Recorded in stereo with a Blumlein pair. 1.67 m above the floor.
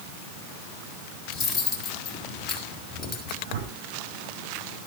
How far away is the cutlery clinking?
About 4 m.